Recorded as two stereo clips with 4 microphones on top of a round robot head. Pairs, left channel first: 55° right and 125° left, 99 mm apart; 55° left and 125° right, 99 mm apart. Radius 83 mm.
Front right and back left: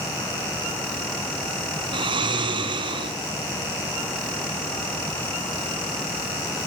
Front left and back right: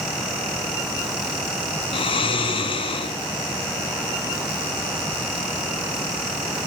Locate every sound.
1.9 s snoring: 85° left, 4 m